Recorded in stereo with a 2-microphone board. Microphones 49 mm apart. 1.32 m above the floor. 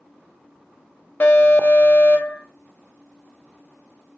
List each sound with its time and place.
1.2 s an alarm: 45° left (ahead or behind), 1.2 m